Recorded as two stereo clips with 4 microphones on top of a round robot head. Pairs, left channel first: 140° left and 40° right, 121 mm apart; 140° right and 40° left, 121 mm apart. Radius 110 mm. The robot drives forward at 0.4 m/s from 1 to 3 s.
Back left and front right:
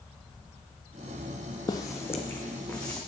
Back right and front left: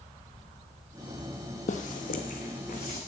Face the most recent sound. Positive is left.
turn(degrees=-145)